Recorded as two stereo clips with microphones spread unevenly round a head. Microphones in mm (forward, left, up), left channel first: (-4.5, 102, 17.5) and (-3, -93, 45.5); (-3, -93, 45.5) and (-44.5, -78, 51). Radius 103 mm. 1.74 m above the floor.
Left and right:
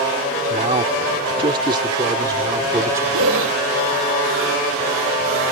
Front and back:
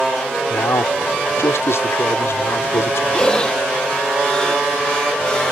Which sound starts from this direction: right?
Breathing, at 3.1 s.